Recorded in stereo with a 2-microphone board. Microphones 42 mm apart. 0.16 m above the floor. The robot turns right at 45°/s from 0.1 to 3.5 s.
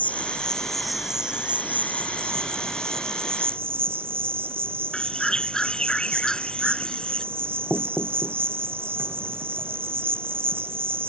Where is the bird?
15° left (ahead or behind).